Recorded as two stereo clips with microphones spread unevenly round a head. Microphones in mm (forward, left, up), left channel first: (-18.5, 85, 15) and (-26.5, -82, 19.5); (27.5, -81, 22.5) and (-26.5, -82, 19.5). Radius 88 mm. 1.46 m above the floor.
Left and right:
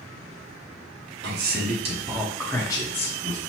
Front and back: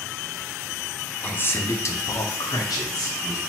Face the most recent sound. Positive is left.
turn(degrees=35)